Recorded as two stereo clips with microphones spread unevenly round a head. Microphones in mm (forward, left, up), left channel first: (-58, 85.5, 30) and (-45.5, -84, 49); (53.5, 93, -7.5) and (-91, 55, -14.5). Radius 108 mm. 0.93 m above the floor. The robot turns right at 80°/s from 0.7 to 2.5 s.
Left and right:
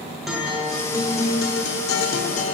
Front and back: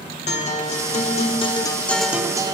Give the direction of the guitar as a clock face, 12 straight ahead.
12 o'clock.